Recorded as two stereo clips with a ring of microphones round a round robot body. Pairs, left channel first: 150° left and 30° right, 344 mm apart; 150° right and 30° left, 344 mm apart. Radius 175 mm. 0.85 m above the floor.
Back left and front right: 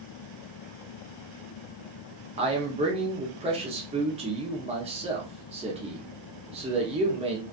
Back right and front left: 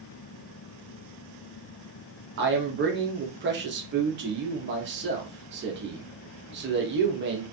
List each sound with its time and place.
2.4 s a man speaking: 25° left, 0.8 m